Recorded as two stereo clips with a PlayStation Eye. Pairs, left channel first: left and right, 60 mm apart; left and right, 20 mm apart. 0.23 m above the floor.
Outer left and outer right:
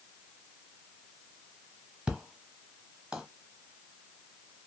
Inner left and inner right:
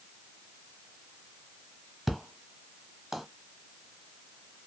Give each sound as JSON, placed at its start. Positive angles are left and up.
{"t": 2.1, "sound": "an explosion", "side_deg": -20, "distance_m": 1.0}